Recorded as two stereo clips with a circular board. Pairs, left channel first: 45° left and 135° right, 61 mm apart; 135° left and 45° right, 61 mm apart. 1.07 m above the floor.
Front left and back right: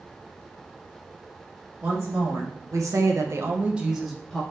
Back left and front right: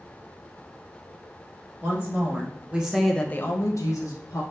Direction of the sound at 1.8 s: 95° right.